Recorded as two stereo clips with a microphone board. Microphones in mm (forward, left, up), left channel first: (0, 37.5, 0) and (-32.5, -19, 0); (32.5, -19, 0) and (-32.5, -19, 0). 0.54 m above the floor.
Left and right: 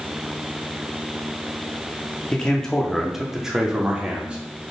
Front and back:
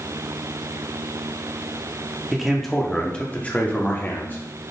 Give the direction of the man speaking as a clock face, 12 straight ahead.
9 o'clock.